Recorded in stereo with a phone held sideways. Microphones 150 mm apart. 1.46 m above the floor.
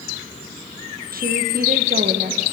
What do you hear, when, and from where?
1.1 s a woman speaking: 75° right (ahead or behind), 1.4 m